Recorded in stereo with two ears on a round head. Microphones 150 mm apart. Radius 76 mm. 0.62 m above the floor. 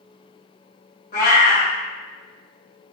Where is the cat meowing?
65° left (ahead or behind), 1.3 m.